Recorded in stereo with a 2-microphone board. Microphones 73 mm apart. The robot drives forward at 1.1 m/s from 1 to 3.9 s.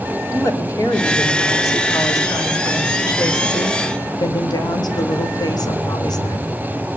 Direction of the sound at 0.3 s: 45° left (ahead or behind).